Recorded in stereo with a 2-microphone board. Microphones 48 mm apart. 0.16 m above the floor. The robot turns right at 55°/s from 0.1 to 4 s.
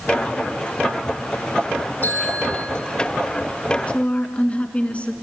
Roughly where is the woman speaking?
Left.